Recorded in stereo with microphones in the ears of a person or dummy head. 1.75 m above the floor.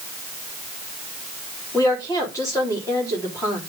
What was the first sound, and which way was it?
A woman speaking, 20° left (ahead or behind).